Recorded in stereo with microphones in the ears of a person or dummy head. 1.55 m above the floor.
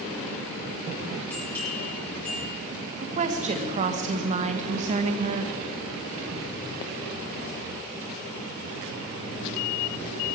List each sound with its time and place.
1.3 s a bell: 10° left (ahead or behind), 6 m
3.0 s a woman speaking: 40° right (ahead or behind), 1.5 m